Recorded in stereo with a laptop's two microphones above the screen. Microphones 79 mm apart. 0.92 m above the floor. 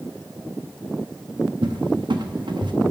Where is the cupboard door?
75° right (ahead or behind), 0.9 m.